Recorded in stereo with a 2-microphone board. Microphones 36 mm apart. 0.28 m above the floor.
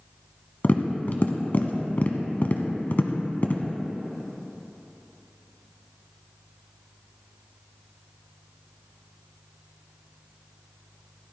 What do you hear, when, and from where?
0.6 s tapping: 50° left (ahead or behind), 1.0 m